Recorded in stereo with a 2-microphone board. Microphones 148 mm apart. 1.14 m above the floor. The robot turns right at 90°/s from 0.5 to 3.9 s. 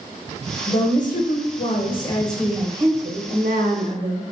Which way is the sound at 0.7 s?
25° left.